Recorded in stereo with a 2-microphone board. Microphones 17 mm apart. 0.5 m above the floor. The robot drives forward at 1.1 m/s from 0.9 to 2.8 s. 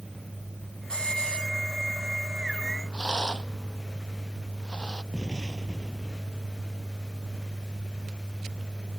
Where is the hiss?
65° left (ahead or behind); by 1.5 s 75° left (ahead or behind).